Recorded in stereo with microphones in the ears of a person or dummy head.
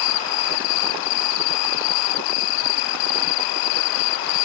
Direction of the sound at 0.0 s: 80° left.